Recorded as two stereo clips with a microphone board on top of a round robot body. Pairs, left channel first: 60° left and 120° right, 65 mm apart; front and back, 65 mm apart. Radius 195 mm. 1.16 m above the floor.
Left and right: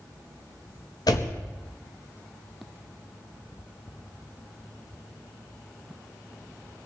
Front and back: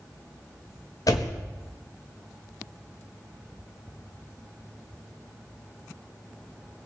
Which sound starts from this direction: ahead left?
A door slam, at 1.1 s.